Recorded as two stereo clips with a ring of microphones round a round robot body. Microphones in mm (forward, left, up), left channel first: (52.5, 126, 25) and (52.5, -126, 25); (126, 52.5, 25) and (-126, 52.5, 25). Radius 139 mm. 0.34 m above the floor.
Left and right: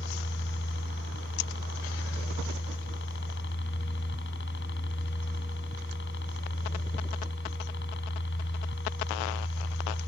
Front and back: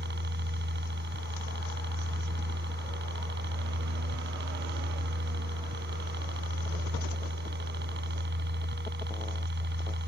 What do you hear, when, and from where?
0.0 s a helicopter: 140° left